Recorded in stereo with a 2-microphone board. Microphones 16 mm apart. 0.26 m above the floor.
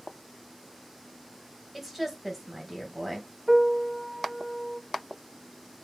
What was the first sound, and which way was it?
A woman speaking, 10° right (ahead or behind).